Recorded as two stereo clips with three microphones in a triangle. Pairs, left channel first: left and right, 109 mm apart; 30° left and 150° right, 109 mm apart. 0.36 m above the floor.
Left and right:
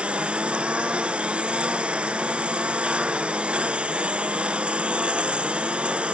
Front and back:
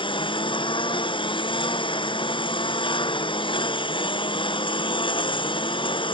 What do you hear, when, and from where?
0.0 s a lawn mower: 10° right